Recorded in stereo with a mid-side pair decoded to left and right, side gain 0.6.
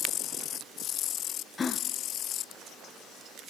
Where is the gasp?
30° left, 0.6 m.